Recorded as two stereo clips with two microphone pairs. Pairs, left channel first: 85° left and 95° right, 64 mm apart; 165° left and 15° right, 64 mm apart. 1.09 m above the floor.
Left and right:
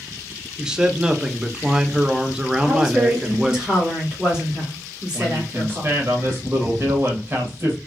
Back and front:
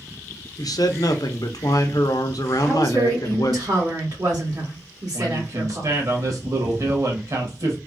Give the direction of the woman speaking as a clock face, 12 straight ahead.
1 o'clock.